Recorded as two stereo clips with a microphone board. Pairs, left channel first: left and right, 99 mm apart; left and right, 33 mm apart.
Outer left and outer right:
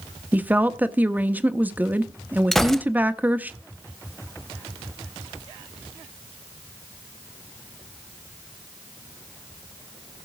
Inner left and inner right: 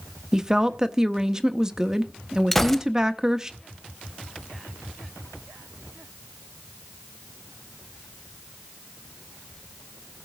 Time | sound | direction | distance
0.3 | a woman speaking | 15° right (ahead or behind) | 0.8 m
2.5 | a gunshot | 5° left (ahead or behind) | 0.7 m